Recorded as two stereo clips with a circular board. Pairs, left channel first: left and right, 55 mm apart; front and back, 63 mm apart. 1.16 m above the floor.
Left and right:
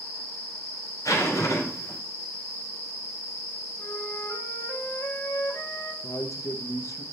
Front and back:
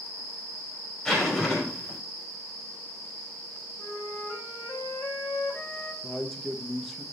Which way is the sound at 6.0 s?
85° left.